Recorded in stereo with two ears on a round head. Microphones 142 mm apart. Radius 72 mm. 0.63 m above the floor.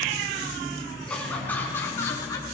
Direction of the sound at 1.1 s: 5° left (ahead or behind).